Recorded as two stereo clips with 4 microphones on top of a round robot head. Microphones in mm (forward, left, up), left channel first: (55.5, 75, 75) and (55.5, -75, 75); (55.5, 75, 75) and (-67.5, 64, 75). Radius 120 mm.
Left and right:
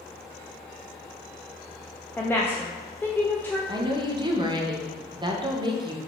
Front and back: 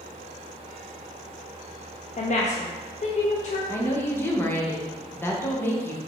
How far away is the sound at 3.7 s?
About 0.9 m.